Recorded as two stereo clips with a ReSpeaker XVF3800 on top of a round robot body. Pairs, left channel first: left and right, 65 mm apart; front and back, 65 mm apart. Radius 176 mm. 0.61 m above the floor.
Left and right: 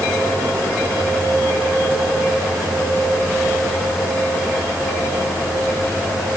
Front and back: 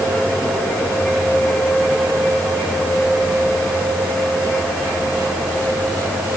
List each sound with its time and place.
Only background noise.